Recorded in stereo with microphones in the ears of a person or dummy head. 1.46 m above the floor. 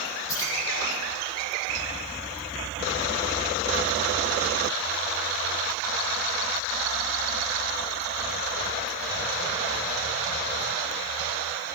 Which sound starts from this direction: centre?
Keys jangling, at 0.3 s.